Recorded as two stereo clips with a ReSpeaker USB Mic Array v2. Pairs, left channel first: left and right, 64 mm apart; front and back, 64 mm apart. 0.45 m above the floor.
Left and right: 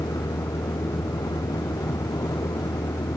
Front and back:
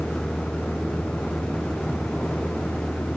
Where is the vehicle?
80° left.